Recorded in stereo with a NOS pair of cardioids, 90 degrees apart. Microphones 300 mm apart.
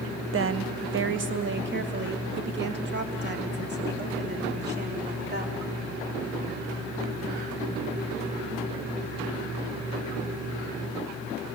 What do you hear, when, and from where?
0.3 s a woman speaking: 45° right, 1.0 m; by 5.6 s 35° right, 4.5 m